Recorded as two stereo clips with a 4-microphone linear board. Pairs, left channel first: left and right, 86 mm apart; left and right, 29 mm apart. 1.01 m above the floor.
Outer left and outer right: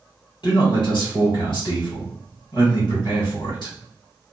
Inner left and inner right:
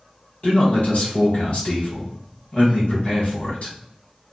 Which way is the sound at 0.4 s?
55° left (ahead or behind).